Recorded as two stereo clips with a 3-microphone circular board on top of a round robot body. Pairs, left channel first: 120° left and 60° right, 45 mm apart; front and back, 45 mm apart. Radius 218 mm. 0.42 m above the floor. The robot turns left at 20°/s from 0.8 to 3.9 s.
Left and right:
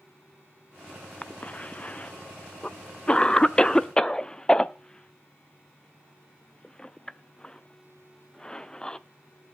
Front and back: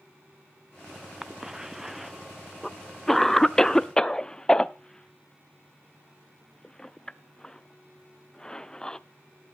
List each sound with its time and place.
1.2 s a cough: 115° left, 0.8 m; by 9.0 s 60° left, 0.8 m